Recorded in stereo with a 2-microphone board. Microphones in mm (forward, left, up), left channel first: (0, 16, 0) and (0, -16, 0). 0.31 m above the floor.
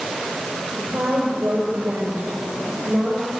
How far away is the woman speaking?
About 6.5 m.